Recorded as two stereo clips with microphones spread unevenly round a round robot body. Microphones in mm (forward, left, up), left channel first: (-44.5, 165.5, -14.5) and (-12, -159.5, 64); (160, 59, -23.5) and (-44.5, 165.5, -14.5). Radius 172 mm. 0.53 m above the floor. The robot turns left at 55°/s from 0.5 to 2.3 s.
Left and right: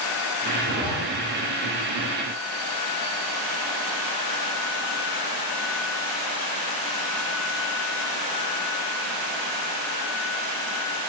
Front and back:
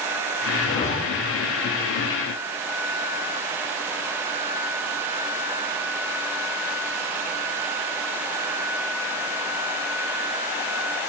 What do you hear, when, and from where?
0.6 s a zipper: 20° left, 5.5 m; by 0.9 s straight ahead, 5.5 m